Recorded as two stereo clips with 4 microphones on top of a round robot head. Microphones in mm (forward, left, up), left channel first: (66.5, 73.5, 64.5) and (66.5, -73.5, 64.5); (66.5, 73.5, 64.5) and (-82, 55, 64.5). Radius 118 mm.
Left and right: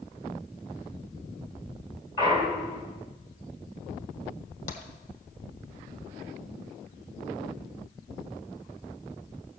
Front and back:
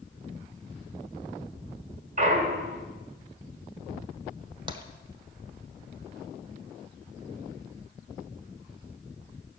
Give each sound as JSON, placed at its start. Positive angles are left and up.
{"t": 2.2, "sound": "a clunk", "azimuth_deg": 155, "distance_m": 2.0}
{"t": 4.7, "sound": "tapping", "azimuth_deg": 130, "distance_m": 1.3}